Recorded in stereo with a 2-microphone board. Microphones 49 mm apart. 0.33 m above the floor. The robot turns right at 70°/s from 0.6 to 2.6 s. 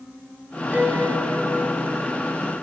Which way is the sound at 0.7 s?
150° right.